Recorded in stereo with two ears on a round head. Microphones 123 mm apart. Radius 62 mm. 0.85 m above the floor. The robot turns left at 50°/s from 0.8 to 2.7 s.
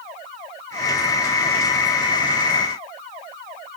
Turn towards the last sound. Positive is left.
No sound to turn to.